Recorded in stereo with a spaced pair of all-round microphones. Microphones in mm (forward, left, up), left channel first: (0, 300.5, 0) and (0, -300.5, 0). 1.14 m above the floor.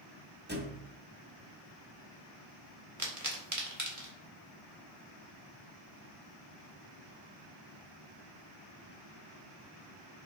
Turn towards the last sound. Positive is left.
turn(degrees=-30)  # may be behind; listen again after turning